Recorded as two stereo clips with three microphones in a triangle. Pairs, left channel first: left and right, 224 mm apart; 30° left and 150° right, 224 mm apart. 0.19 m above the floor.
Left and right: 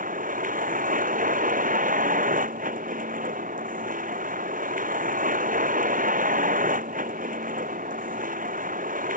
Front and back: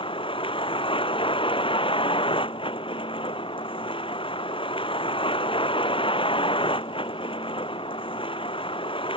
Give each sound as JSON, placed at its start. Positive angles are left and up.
{"t": 0.0, "sound": "a vehicle", "azimuth_deg": -35}